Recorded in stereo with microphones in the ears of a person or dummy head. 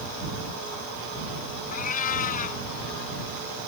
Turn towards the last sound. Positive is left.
turn(degrees=45)  # may be behind; listen again after turning